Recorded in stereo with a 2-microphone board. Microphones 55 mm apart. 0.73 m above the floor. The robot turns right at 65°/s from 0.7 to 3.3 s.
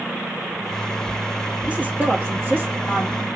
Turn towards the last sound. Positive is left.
turn(degrees=-40)